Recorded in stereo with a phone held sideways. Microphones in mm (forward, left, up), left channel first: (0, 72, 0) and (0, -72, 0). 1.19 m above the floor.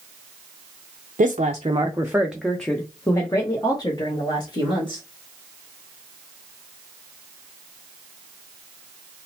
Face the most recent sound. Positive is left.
turn(degrees=35)  # may be behind; listen again after turning